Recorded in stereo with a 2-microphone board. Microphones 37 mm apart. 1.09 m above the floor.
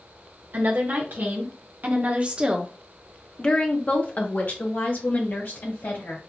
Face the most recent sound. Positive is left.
turn(degrees=65)  # may be behind; listen again after turning